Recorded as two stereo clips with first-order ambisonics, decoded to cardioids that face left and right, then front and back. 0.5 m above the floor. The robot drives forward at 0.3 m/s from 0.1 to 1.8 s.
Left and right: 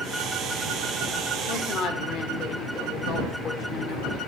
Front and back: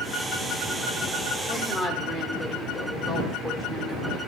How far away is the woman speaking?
About 1.2 m.